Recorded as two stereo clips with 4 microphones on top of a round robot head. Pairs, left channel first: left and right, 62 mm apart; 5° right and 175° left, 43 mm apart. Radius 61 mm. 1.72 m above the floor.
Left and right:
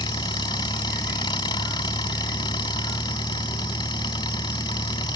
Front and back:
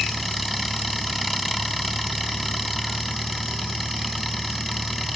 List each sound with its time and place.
0.0 s an engine running: 85° left